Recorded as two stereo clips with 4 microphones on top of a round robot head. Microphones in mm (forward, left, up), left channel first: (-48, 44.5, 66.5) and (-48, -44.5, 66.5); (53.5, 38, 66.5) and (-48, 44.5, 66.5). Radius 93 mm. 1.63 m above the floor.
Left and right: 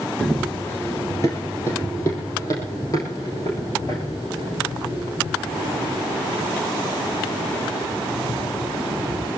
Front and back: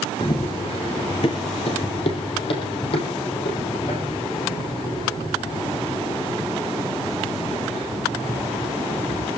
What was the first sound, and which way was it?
Running footsteps, straight ahead.